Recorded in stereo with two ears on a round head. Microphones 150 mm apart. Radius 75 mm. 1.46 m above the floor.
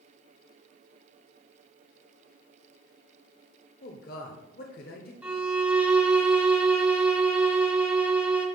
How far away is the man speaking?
About 0.9 m.